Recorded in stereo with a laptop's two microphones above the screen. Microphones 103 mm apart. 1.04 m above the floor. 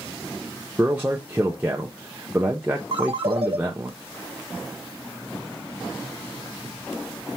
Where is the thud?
No thud in this recording.